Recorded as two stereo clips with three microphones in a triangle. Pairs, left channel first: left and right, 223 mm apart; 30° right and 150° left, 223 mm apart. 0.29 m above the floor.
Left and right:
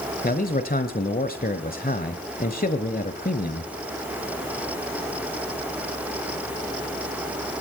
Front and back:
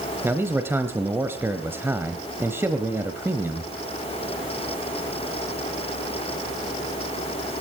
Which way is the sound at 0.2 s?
75° left.